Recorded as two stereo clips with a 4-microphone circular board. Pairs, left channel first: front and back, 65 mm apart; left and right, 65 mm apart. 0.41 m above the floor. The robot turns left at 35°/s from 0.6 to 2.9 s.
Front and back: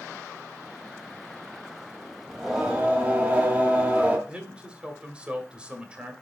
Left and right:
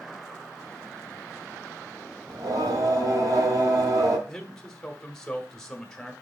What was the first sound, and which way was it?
Singing, 90° right.